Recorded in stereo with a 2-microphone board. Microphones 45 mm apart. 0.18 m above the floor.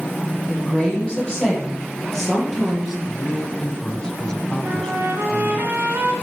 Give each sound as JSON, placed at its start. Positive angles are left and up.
{"t": 0.5, "sound": "a woman speaking", "side_deg": 20, "distance_m": 6.5}
{"t": 3.1, "sound": "a man speaking", "side_deg": 15, "distance_m": 1.1}
{"t": 4.6, "sound": "a trumpet", "side_deg": -50, "distance_m": 1.8}